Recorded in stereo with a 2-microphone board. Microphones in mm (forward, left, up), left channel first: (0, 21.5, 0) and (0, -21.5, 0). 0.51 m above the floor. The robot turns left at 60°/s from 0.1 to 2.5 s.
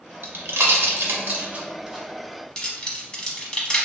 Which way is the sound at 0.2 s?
60° right (ahead or behind).